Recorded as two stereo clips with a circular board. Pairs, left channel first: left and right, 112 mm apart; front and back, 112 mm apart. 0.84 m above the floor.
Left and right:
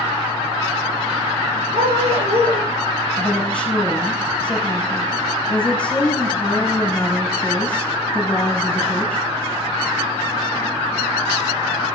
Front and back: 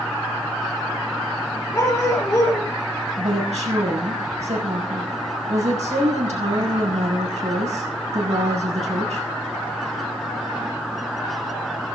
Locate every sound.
1.7 s a dog barking: 70° right, 8.5 m
3.2 s a woman speaking: 170° left, 6.5 m